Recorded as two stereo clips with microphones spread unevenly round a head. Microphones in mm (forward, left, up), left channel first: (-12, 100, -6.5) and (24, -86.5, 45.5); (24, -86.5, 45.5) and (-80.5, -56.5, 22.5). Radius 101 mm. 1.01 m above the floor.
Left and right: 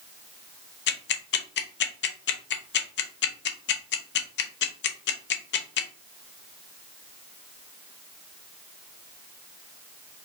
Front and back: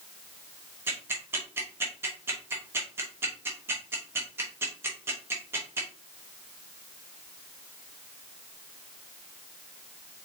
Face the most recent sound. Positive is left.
turn(degrees=95)